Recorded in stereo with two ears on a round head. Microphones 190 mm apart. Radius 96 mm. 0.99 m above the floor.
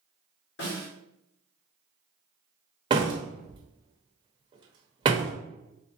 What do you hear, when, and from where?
0.6 s a snare drum: 60° left (ahead or behind), 2.0 m
2.9 s a door slam: 20° right (ahead or behind), 0.7 m